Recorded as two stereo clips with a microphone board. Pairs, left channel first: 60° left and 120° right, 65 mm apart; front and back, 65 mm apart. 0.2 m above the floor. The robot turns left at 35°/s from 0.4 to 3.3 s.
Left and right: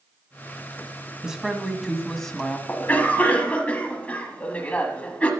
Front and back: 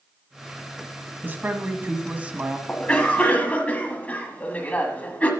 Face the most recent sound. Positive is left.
turn(degrees=30)